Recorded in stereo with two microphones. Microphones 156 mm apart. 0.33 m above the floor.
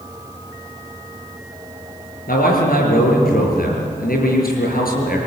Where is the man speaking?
70° left (ahead or behind), 6.5 m.